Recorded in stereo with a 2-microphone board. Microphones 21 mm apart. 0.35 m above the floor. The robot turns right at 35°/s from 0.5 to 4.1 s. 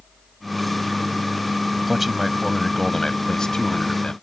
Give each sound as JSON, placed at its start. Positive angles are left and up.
{"t": 1.9, "sound": "a man speaking", "azimuth_deg": -15}